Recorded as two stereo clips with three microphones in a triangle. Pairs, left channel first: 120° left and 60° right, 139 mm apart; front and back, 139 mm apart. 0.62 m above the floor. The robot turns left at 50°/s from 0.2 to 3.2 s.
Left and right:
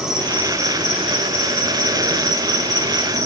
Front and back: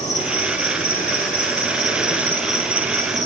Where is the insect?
25° left, 3.5 m; by 3.3 s 125° right, 3.5 m.